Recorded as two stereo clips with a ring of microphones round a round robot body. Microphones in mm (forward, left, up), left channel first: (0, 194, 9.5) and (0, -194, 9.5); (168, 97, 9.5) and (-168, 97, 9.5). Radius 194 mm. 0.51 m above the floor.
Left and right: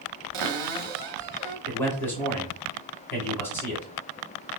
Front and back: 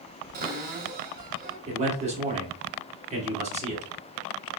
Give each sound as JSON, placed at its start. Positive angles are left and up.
{"t": 0.3, "sound": "a cupboard door", "azimuth_deg": -115, "distance_m": 0.6}
{"t": 1.7, "sound": "a man speaking", "azimuth_deg": 165, "distance_m": 1.1}